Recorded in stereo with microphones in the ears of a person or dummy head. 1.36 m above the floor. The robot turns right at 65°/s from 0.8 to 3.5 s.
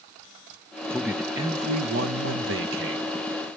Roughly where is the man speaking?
Behind.